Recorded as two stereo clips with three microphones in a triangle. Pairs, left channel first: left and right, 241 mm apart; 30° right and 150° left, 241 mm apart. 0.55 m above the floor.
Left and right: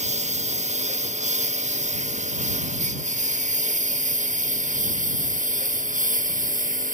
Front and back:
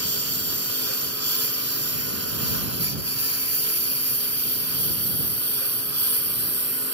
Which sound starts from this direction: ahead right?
A lawn mower, at 0.0 s.